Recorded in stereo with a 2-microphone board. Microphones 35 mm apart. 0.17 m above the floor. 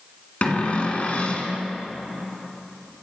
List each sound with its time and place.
0.4 s a cupboard door: 40° left (ahead or behind), 1.8 m